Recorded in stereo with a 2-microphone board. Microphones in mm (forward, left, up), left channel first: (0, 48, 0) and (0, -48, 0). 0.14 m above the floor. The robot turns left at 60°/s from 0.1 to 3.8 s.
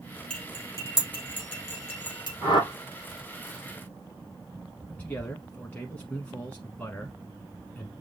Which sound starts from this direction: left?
A whoosh, at 2.4 s.